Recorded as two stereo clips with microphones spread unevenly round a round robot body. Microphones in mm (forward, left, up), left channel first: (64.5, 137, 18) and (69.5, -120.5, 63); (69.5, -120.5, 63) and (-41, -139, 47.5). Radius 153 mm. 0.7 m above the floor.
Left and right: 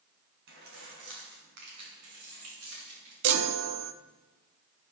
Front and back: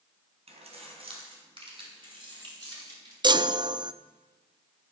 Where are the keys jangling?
145° right, 4 m; by 3.1 s 115° right, 7.5 m.